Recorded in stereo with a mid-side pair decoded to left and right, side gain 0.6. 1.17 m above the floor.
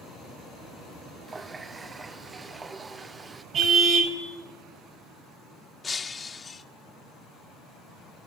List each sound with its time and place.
1.3 s a running tap: 20° right, 0.6 m
3.5 s a car horn: 50° right, 3 m
5.8 s breaking glass: 25° left, 1.5 m